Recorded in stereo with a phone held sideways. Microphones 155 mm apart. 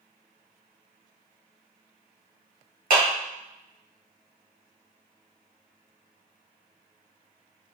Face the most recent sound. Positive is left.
turn(degrees=-65)  # may be behind; listen again after turning